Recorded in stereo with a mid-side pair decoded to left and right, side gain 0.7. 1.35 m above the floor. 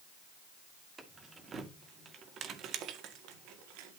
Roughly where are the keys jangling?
Ahead.